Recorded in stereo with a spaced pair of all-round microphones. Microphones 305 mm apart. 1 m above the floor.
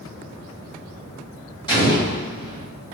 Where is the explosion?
15° left (ahead or behind), 1.9 m.